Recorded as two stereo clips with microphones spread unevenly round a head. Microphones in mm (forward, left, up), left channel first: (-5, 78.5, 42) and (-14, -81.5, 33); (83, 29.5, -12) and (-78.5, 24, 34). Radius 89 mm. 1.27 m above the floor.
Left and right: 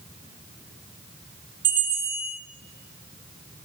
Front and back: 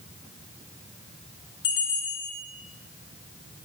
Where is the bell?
30° right, 3 m.